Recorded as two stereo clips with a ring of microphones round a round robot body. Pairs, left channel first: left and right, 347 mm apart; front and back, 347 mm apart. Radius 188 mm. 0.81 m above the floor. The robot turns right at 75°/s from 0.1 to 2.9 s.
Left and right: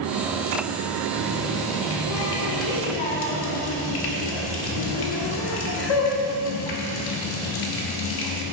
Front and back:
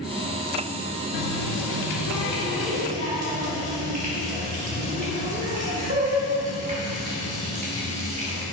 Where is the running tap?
25° right, 1.3 m; by 8.4 s 110° left, 1.3 m.